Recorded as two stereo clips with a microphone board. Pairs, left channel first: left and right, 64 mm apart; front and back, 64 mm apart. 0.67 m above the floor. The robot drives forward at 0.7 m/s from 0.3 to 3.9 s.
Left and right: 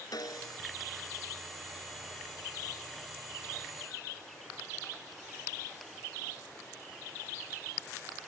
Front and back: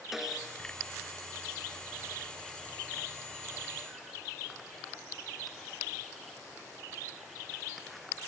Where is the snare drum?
95° left; by 0.6 s 100° left.